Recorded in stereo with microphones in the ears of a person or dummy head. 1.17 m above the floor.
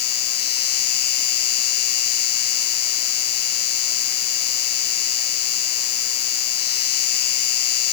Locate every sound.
0.0 s an insect: 55° left (ahead or behind)